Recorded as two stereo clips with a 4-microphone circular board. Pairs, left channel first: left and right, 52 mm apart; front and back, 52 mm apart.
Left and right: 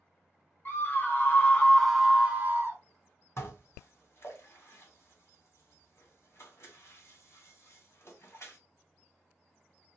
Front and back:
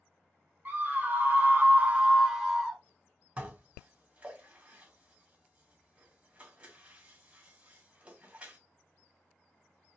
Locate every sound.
0.7 s a scream: 125° left, 1.0 m; by 2.8 s 85° right, 0.7 m
3.4 s dishes clattering: 120° left, 1.5 m